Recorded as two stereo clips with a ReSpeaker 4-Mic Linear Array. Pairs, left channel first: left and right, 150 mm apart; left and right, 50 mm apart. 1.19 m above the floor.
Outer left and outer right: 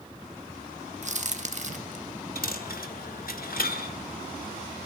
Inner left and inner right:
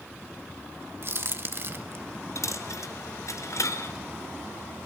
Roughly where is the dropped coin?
Left.